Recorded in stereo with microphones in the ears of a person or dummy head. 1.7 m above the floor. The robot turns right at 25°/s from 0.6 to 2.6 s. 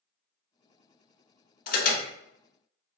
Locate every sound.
1.7 s an alarm: 50° left (ahead or behind), 1.1 m; by 2.1 s 60° left (ahead or behind), 1.1 m